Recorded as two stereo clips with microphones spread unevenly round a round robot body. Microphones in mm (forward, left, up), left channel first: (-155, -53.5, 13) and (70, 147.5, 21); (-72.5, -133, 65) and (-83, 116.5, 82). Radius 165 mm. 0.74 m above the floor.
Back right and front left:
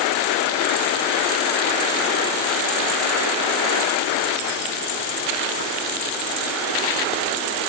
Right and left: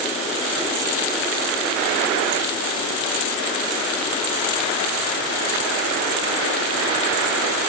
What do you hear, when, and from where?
Only background noise.